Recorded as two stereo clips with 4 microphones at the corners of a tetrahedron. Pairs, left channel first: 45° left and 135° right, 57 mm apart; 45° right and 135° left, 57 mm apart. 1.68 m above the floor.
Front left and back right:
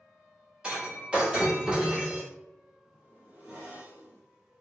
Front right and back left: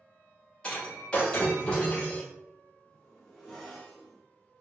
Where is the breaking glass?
90° right, 1.2 m.